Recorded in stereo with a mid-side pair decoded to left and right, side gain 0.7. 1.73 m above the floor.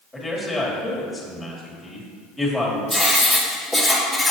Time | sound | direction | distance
0.1 | a man speaking | 5° left | 2.5 m
2.9 | writing | 5° right | 2 m